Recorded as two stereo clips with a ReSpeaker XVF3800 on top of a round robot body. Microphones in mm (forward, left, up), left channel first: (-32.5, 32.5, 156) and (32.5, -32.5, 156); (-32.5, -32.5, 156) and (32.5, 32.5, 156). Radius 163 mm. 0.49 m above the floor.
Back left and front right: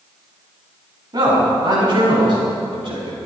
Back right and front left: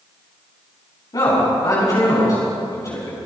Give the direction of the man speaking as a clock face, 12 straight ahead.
3 o'clock.